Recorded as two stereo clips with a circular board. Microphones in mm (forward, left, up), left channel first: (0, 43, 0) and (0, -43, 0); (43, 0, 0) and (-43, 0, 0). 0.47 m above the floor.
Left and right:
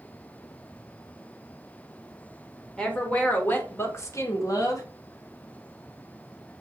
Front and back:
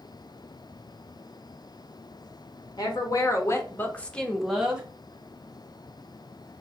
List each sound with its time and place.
2.8 s a woman speaking: 15° left, 1.1 m; by 4.8 s 110° left, 0.9 m